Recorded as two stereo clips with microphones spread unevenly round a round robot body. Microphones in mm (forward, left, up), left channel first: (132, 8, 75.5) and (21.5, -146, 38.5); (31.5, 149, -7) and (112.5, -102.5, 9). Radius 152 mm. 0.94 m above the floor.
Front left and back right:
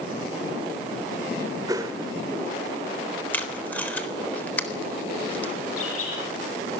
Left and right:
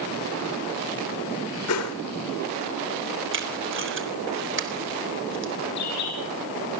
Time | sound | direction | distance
1.7 | a whoosh | 155° left | 1.3 m
3.3 | tape being pulled | 30° right | 3.5 m
5.8 | a bird | 90° left | 7.5 m